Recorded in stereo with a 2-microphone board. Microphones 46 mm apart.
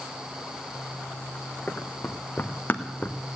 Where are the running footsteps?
30° left (ahead or behind), 1.9 m; by 3.2 s 35° left (ahead or behind), 1.0 m.